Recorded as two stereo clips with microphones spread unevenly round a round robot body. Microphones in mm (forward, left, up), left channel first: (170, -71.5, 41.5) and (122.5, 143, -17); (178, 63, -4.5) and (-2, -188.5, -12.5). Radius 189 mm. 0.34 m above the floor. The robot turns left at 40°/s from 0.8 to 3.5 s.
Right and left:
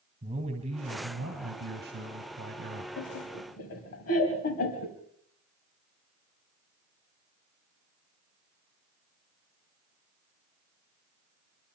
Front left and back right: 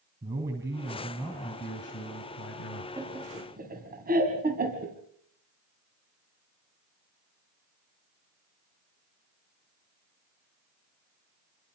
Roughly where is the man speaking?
Behind left.